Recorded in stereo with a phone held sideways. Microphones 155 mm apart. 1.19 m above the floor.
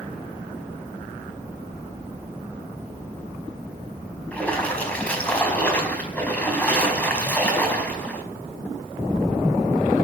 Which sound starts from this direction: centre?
A splash, at 4.3 s.